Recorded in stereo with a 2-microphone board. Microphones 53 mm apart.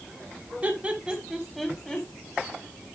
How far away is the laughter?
About 1.7 m.